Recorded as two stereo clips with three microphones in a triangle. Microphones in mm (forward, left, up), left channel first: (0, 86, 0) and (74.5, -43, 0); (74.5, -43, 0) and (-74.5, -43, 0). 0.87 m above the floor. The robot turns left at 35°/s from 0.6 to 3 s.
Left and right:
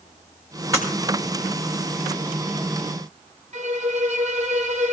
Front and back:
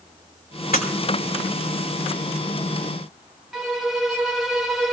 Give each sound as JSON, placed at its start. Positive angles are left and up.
{"t": 0.7, "sound": "breaking glass", "azimuth_deg": 10, "distance_m": 4.0}
{"t": 3.5, "sound": "a violin", "azimuth_deg": -90, "distance_m": 1.0}